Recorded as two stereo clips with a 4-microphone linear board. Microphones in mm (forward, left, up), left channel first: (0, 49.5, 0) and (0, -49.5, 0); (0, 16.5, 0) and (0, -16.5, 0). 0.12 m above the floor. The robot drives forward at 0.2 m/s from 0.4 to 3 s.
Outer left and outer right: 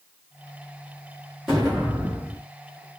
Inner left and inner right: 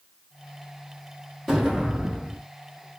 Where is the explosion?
Centre (ahead or behind), 3.5 m.